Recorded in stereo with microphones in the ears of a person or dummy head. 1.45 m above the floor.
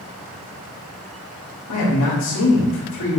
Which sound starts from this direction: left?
A man speaking, at 1.7 s.